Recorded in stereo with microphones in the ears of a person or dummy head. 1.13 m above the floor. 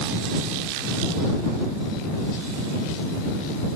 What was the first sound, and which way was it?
Only background noise.